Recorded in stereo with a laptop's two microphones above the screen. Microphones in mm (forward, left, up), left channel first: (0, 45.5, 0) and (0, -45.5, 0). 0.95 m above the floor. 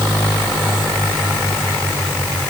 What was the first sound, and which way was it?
Only background noise.